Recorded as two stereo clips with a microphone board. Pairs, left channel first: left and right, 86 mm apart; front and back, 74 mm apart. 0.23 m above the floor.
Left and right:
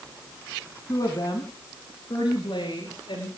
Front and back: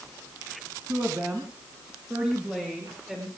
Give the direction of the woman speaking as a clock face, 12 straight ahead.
8 o'clock.